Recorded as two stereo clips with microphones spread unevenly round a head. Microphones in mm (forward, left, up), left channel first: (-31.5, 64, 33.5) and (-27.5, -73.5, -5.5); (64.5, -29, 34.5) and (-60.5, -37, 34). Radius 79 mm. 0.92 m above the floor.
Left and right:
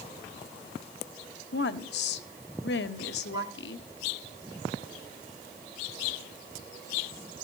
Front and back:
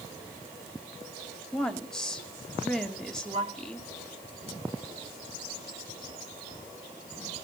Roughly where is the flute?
Behind right.